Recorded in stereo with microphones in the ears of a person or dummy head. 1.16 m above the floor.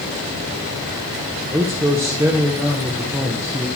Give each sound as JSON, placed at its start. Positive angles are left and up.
{"t": 1.5, "sound": "a man speaking", "side_deg": -10, "distance_m": 1.0}